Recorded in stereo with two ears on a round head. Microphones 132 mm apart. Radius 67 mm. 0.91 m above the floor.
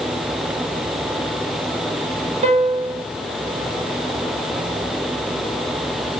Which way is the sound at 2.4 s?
45° right (ahead or behind).